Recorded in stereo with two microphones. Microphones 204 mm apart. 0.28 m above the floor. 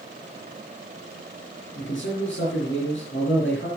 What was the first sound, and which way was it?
A man speaking, 70° left (ahead or behind).